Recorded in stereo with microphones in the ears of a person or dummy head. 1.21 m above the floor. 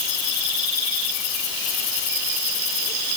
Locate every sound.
Only background noise.